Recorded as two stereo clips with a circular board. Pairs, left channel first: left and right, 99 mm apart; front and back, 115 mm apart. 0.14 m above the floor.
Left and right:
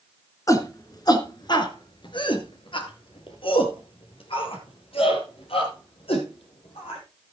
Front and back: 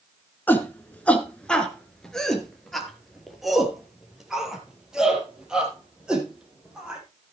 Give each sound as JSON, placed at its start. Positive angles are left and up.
{"t": 0.5, "sound": "a shout", "azimuth_deg": 60, "distance_m": 2.0}